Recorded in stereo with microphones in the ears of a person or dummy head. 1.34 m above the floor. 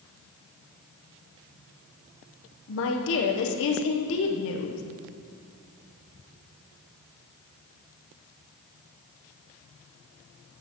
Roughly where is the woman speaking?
Left.